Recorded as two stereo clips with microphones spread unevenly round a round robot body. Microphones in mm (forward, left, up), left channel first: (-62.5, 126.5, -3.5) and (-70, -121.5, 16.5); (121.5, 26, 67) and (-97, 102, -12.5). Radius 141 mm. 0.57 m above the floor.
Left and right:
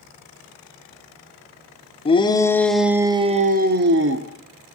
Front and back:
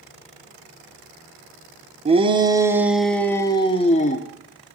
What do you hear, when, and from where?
2.0 s a shout: 140° left, 1.3 m; by 4.3 s 85° right, 1.4 m